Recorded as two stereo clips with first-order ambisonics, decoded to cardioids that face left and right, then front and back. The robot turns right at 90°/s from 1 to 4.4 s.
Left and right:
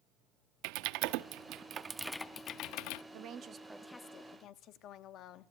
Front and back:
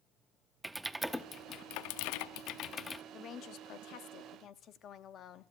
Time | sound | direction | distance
0.6 | typing on a keyboard | 100° right | 0.5 m
3.1 | a woman speaking | 60° right | 0.8 m